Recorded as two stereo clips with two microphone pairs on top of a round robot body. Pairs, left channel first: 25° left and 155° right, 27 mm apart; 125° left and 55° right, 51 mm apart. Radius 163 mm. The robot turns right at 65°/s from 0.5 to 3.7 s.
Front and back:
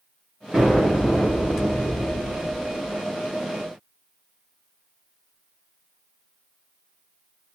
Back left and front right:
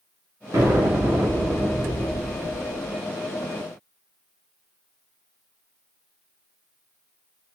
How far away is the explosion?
About 1.9 m.